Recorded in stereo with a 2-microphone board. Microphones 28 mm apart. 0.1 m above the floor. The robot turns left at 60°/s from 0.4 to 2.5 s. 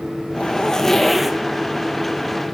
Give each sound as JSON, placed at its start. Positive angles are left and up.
{"t": 0.3, "sound": "a zipper", "azimuth_deg": 40, "distance_m": 0.7}